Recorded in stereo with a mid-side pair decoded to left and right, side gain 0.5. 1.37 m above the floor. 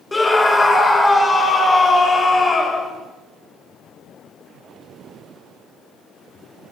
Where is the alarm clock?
I don't hear an alarm clock.